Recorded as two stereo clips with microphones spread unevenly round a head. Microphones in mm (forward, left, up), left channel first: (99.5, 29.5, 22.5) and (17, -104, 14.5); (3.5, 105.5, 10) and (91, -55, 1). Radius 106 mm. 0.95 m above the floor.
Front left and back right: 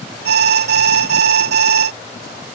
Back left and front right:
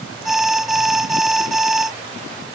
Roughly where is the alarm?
Behind right.